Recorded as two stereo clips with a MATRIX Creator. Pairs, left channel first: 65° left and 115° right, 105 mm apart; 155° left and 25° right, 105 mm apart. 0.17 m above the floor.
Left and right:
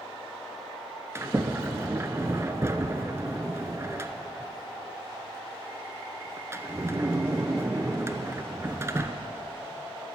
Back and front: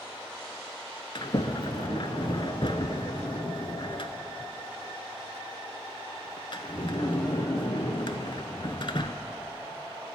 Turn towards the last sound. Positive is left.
turn(degrees=-175)